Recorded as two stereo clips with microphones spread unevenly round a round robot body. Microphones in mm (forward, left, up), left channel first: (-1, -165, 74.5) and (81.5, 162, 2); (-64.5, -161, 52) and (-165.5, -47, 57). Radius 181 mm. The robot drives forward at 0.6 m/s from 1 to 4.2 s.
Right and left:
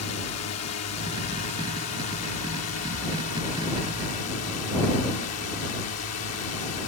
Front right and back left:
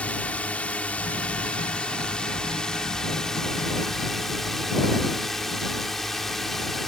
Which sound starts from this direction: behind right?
A drone, at 0.0 s.